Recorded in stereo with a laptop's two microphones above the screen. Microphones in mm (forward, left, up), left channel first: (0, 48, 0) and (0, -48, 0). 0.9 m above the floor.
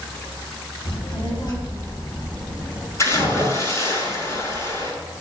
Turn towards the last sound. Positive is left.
turn(degrees=30)  # may be behind; listen again after turning